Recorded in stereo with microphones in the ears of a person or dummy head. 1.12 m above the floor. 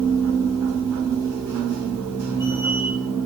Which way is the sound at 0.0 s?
15° right (ahead or behind).